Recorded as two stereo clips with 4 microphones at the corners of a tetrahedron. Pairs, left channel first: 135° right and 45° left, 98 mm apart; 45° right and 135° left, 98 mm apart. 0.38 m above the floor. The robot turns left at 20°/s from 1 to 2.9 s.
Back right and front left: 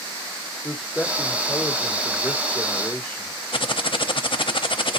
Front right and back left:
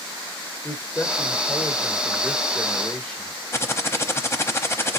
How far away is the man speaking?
About 1.5 m.